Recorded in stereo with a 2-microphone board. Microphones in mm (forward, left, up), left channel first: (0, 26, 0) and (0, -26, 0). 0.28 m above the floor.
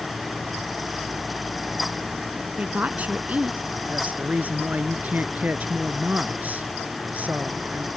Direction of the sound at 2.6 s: 35° right (ahead or behind).